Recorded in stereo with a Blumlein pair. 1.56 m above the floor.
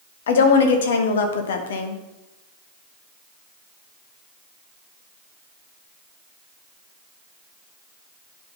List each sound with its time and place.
0.3 s a woman speaking: 60° left, 1.2 m